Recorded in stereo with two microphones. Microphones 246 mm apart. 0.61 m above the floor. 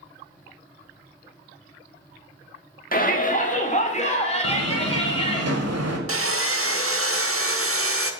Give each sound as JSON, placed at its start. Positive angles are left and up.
{"t": 2.9, "sound": "a shout", "side_deg": 35, "distance_m": 1.6}
{"t": 4.4, "sound": "a door slam", "side_deg": -80, "distance_m": 1.7}
{"t": 6.1, "sound": "sawing", "side_deg": -60, "distance_m": 0.9}